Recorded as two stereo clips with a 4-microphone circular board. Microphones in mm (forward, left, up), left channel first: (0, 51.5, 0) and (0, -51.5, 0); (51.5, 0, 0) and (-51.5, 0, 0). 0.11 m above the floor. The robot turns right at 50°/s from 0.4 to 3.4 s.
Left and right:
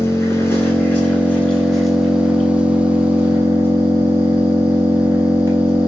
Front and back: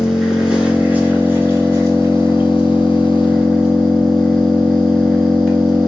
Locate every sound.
0.0 s an engine running: 105° left, 1.0 m; by 5.9 s 105° right, 1.0 m